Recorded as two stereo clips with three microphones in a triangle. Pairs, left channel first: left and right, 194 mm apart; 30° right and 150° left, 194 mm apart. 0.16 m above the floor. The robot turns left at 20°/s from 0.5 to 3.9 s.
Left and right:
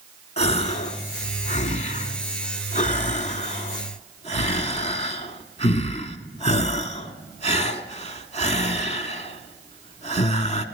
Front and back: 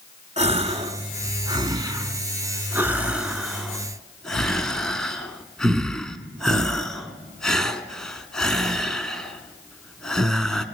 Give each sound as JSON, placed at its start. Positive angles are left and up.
{"t": 0.4, "sound": "a gasp", "azimuth_deg": 125, "distance_m": 0.5}